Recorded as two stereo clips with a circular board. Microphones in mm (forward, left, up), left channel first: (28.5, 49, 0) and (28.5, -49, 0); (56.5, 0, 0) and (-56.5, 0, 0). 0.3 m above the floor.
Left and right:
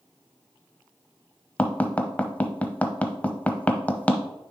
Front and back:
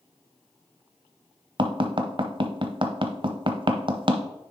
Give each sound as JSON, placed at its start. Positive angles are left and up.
{"t": 1.6, "sound": "tapping", "azimuth_deg": 160, "distance_m": 0.7}